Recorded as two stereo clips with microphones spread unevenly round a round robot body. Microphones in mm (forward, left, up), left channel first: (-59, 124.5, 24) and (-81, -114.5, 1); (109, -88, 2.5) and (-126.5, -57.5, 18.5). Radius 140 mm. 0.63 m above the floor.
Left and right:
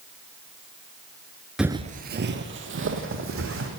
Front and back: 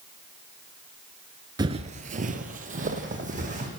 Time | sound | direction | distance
1.6 | footsteps | 165° left | 0.6 m